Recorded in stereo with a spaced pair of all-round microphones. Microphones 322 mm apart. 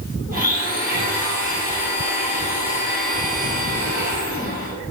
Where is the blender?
25° right (ahead or behind), 1.7 m.